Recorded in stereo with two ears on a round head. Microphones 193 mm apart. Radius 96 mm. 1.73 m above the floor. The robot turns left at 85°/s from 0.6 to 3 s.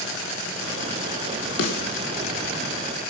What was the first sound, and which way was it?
A snare drum, 70° left (ahead or behind).